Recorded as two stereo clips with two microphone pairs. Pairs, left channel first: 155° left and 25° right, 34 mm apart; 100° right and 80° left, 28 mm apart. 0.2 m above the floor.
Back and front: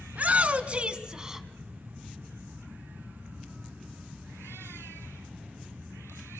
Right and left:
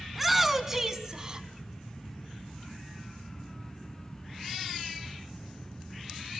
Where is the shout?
5° right, 1.5 m; by 1.5 s 45° left, 1.2 m.